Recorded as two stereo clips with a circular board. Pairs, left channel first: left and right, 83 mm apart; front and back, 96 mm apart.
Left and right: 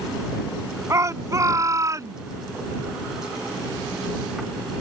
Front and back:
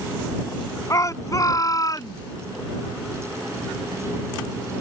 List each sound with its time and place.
0.9 s a shout: 45° right